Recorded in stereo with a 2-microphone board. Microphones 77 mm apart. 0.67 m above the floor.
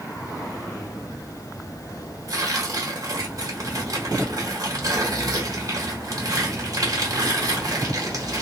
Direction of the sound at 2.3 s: 50° right (ahead or behind).